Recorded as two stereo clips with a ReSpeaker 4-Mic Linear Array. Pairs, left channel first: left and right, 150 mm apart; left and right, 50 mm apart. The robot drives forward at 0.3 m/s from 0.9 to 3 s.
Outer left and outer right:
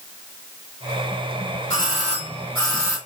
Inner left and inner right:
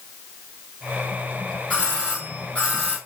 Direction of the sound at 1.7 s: 25° left (ahead or behind).